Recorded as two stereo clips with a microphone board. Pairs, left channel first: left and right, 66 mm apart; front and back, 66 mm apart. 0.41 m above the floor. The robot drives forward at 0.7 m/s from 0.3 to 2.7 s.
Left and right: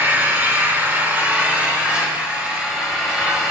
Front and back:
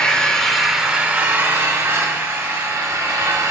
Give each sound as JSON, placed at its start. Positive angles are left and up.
{"t": 0.0, "sound": "an engine running", "azimuth_deg": -65, "distance_m": 0.9}